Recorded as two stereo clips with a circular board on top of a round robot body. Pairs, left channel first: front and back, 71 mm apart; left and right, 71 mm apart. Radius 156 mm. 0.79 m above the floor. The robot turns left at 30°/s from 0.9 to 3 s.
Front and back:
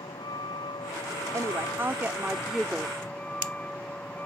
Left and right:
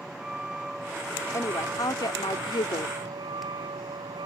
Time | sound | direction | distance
0.0 | a vehicle | 10° right | ?
1.3 | a woman speaking | 135° left | ?